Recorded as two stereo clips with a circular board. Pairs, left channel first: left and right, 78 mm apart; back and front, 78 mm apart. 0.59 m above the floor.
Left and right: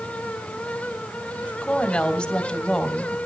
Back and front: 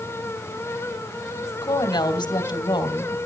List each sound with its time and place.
1.6 s a woman speaking: 170° left, 3 m